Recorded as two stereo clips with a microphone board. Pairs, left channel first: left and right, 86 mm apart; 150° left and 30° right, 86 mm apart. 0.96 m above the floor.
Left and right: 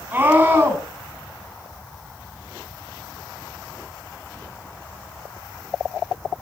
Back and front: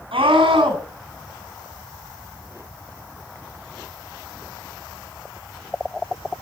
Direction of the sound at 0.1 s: 20° right.